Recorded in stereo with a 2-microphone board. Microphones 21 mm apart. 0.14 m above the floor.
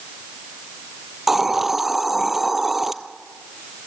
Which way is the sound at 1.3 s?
10° right (ahead or behind).